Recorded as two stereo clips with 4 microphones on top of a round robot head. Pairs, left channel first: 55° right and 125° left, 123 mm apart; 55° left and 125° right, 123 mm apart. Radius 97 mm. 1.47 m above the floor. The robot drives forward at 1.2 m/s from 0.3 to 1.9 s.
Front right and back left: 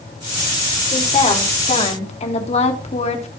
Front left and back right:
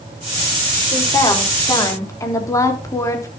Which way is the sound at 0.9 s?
10° right.